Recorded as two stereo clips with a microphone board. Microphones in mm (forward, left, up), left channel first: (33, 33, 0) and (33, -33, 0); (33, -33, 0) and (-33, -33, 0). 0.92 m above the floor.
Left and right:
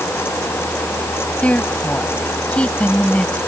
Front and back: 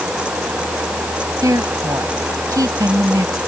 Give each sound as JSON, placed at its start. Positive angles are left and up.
{"t": 1.4, "sound": "a woman speaking", "azimuth_deg": 155}